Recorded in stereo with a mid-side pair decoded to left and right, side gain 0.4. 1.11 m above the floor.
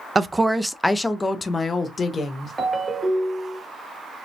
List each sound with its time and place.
0.1 s a woman speaking: 35° right, 0.5 m; by 2.5 s 40° left, 1.3 m
2.6 s a ringtone: 30° right, 1.4 m